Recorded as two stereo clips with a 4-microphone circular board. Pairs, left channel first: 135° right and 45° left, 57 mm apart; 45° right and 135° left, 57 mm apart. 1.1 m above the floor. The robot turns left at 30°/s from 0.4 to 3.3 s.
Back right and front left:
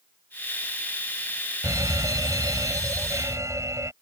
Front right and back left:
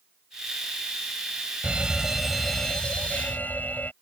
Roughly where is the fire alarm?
Ahead left.